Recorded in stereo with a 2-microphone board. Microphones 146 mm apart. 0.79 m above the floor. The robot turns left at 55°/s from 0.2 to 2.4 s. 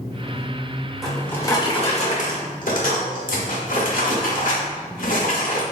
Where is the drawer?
Straight behind, 0.7 m; by 5.6 s 105° left, 0.7 m.